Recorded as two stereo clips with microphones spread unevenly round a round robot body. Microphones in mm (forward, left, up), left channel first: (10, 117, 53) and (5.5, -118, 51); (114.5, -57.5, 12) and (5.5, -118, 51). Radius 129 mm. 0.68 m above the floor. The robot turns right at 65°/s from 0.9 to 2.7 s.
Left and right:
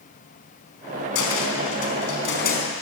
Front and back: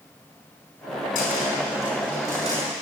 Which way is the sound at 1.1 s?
55° left.